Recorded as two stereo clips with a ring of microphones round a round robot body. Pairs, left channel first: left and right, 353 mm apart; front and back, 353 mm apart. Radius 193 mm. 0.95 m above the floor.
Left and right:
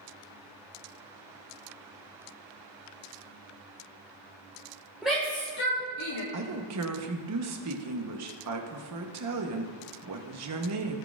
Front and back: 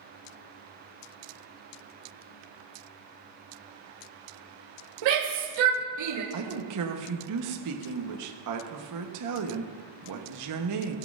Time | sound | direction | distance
5.0 | a shout | 175° right | 1.2 m
6.3 | a woman speaking | 140° right | 1.0 m